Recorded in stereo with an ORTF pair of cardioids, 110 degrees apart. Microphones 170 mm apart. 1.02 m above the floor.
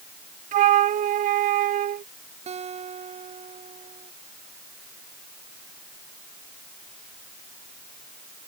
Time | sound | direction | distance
0.5 | a flute | 50° right | ?
2.5 | a guitar | 40° right | ?